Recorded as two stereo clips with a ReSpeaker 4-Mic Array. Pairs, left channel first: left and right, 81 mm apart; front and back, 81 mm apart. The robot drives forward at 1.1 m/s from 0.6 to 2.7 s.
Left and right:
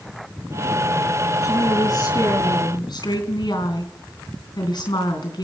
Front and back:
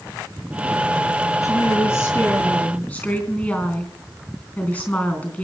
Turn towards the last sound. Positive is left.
turn(degrees=65)